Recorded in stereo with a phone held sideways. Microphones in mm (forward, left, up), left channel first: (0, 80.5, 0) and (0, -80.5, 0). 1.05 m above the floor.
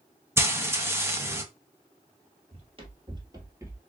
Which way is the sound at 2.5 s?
40° right (ahead or behind).